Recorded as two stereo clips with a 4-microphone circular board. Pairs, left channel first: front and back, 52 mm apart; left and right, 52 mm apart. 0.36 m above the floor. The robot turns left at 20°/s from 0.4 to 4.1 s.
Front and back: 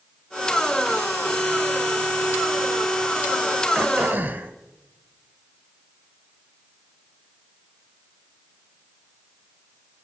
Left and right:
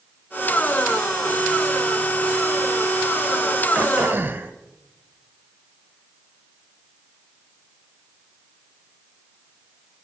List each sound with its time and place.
3.8 s throat clearing: 135° right, 1.2 m; by 4.5 s 140° right, 1.2 m